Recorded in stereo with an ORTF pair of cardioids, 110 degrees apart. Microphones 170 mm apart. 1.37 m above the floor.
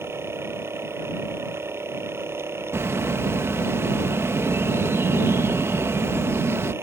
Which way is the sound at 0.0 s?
15° right.